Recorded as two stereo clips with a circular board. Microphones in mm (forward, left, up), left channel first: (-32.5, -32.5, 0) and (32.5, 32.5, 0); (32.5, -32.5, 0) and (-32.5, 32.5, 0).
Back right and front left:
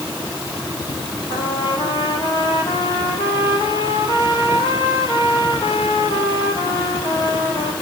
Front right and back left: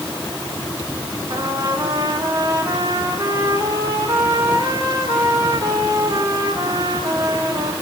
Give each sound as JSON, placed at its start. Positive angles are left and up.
{"t": 1.3, "sound": "a trumpet", "azimuth_deg": -170, "distance_m": 4.0}